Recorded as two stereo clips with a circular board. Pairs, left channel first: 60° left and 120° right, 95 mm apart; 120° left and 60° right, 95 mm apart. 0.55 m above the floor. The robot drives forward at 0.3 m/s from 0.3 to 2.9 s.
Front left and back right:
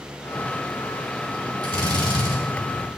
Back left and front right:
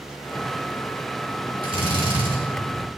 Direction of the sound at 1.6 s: 85° right.